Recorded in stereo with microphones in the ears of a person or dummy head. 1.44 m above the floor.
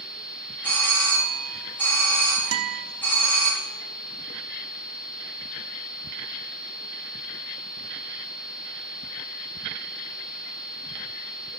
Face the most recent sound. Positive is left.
turn(degrees=-85)